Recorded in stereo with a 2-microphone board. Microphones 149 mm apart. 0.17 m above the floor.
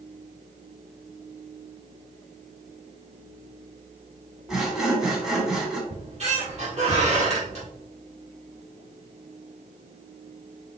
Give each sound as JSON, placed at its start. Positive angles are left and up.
{"t": 4.5, "sound": "sawing", "side_deg": -5, "distance_m": 1.1}
{"t": 5.9, "sound": "a squeak", "side_deg": -45, "distance_m": 2.0}